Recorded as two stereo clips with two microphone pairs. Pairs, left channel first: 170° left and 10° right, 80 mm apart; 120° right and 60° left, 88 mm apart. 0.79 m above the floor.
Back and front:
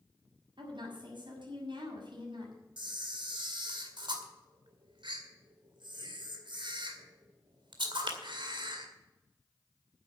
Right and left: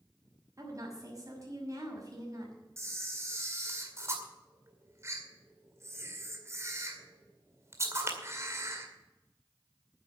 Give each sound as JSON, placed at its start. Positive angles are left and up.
{"t": 0.6, "sound": "a woman speaking", "azimuth_deg": 5, "distance_m": 6.0}
{"t": 2.8, "sound": "a camera shutter", "azimuth_deg": 0, "distance_m": 2.0}